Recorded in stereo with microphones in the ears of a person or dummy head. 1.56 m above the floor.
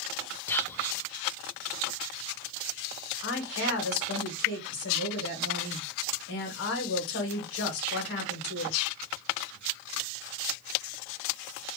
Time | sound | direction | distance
0.5 | whispering | 10° left (ahead or behind) | 0.6 m
3.2 | a woman speaking | 70° left (ahead or behind) | 1.8 m